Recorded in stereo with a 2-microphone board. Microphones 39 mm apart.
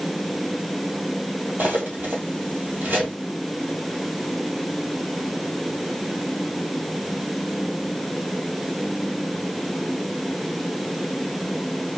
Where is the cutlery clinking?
50° right (ahead or behind), 1.6 m.